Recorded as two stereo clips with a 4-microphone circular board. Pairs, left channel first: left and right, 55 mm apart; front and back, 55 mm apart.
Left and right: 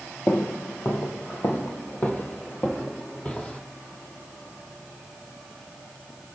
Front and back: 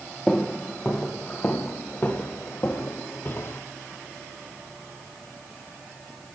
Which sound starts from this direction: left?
Footsteps, at 0.3 s.